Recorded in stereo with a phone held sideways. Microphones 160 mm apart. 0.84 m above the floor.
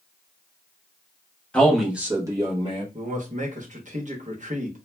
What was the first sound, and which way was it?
A man speaking, 5° left (ahead or behind).